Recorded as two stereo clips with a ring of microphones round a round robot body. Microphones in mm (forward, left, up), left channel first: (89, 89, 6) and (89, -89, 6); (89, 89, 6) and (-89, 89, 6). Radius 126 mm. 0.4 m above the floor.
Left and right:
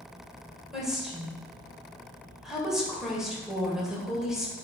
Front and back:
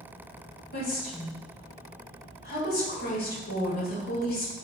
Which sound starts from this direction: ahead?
A woman speaking, at 0.7 s.